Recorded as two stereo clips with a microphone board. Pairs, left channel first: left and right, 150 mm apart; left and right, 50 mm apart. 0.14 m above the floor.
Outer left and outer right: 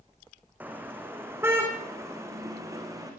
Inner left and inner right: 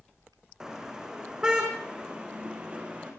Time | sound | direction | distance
0.6 | a car horn | 10° right (ahead or behind) | 4.5 m